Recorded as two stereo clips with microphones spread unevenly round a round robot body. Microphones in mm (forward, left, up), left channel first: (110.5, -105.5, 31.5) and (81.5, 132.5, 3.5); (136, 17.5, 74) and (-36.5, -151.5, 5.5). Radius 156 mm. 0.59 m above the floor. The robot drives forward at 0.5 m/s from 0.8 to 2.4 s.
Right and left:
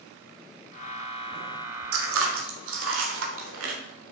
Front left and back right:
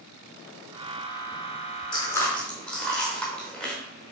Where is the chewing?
125° left, 0.8 m; by 3.7 s 135° left, 1.0 m.